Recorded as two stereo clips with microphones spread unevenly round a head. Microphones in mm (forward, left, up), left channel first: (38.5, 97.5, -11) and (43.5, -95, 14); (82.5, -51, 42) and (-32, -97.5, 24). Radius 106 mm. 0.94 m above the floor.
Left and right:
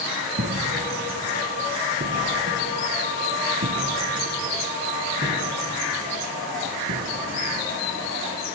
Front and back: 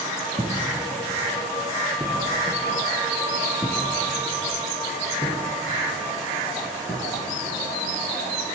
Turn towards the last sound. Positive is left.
turn(degrees=-40)